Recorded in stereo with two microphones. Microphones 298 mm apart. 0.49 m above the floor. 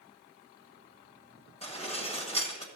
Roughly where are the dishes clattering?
Left.